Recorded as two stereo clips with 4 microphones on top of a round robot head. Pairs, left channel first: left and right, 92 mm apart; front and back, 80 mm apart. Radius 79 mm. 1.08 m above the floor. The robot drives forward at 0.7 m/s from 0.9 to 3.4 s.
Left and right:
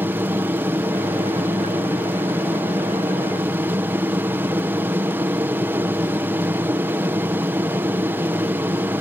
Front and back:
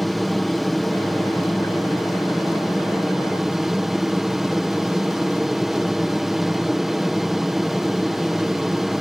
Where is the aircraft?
90° right; by 9.0 s 95° right.